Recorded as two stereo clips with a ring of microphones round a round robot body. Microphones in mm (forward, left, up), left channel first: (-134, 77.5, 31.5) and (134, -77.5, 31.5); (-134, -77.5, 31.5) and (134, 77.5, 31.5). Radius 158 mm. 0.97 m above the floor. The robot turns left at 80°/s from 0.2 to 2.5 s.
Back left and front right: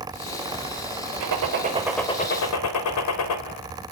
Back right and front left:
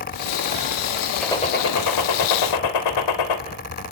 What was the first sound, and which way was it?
A gunshot, 60° right.